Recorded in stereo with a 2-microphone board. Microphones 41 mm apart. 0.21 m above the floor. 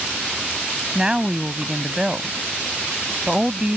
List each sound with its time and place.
0.9 s a woman speaking: 20° right (ahead or behind)